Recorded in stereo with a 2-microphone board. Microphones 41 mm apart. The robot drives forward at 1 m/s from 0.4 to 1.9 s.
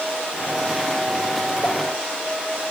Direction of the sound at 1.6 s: 35° left (ahead or behind).